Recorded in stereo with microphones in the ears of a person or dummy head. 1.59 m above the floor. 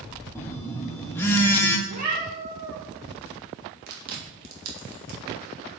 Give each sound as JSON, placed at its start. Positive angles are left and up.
{"t": 0.3, "sound": "a phone buzzing", "side_deg": 10, "distance_m": 1.3}
{"t": 1.9, "sound": "a cat meowing", "side_deg": -45, "distance_m": 1.9}
{"t": 3.9, "sound": "chewing", "side_deg": -60, "distance_m": 3.0}